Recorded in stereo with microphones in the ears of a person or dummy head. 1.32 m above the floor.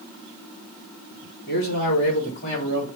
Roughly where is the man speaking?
Left.